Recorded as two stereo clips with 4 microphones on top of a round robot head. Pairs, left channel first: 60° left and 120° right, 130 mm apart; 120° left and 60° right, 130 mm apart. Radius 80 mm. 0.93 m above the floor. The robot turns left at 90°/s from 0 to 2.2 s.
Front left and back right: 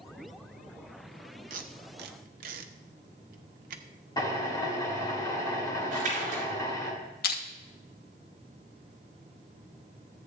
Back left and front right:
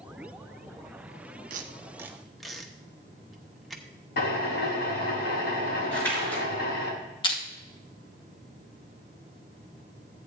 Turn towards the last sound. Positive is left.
turn(degrees=65)